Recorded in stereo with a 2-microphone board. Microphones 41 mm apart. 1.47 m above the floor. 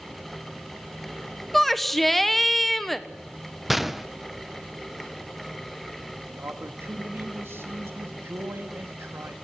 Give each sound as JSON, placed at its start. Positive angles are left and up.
{"t": 1.5, "sound": "a shout", "side_deg": 5, "distance_m": 1.2}
{"t": 3.7, "sound": "a gunshot", "side_deg": -5, "distance_m": 0.5}
{"t": 6.3, "sound": "a man speaking", "side_deg": -70, "distance_m": 2.0}